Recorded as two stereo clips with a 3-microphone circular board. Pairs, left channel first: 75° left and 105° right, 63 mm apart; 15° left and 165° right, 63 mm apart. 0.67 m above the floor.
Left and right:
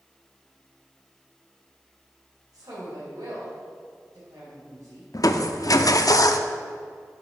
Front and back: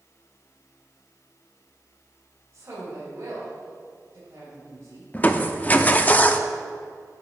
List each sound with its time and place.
2.5 s a woman speaking: 115° right, 3.5 m
5.1 s crushing: 75° left, 0.6 m